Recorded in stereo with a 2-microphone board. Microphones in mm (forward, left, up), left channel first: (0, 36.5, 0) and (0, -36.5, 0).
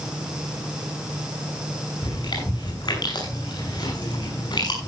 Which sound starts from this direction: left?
Chewing, at 2.0 s.